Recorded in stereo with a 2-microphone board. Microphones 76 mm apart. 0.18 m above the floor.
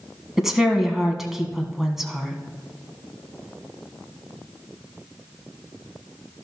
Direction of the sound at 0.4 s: 5° right (ahead or behind).